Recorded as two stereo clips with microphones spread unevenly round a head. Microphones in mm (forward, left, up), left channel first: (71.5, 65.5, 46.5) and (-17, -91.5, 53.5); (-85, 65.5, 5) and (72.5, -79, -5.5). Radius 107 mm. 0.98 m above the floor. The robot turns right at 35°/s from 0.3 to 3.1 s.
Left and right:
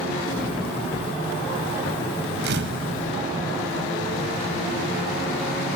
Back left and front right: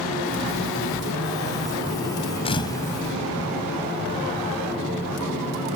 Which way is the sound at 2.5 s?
160° right.